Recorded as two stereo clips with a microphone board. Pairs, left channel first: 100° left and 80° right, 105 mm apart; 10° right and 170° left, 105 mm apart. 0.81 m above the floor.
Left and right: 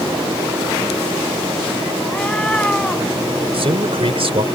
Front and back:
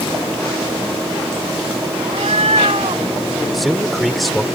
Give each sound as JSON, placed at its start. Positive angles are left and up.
{"t": 2.0, "sound": "a cat meowing", "azimuth_deg": 180}
{"t": 3.5, "sound": "a man speaking", "azimuth_deg": -100}